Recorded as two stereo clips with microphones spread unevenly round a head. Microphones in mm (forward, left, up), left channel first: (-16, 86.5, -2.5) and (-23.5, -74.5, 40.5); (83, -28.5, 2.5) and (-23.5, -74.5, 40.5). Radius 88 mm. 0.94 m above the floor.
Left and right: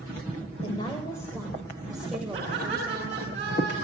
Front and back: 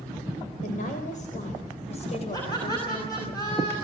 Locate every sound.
0.6 s a woman speaking: 25° left, 4 m; by 3.3 s 25° right, 5 m
2.3 s laughter: 35° right, 9 m